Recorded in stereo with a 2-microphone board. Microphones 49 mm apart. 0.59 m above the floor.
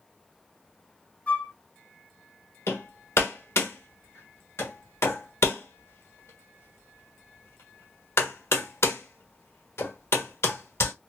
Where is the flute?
30° left (ahead or behind), 1.6 m.